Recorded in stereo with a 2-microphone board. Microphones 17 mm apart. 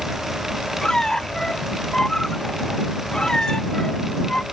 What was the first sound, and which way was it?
A squeak, 35° left (ahead or behind).